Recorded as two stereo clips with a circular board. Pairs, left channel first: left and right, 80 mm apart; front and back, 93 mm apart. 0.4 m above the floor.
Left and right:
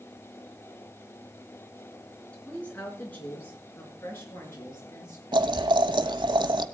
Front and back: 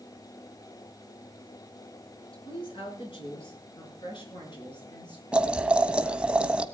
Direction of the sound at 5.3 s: 100° right.